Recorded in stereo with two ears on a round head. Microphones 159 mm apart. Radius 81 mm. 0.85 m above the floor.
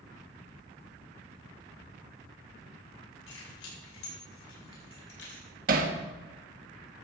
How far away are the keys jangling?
About 6 m.